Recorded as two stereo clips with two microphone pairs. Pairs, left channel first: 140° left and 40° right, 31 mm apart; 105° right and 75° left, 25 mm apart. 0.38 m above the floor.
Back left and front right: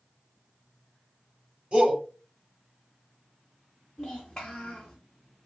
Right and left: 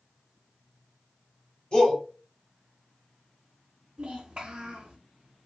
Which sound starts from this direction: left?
A child speaking, at 4.0 s.